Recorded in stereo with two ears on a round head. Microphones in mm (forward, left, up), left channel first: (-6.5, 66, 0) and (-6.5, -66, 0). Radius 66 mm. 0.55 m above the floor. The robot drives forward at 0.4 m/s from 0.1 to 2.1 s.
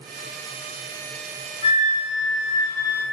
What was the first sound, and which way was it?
A flute, 50° left (ahead or behind).